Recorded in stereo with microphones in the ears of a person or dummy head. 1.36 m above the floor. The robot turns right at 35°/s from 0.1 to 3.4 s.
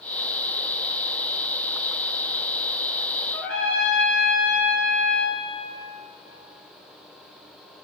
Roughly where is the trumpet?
Centre.